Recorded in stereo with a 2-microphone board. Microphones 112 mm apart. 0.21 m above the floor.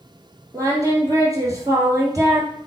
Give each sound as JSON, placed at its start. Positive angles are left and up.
{"t": 0.5, "sound": "singing", "side_deg": -30, "distance_m": 2.0}